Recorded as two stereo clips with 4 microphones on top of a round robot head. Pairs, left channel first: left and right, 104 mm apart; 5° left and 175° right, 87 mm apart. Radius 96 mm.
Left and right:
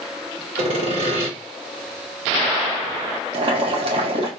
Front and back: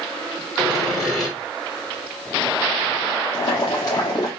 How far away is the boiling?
About 1.4 m.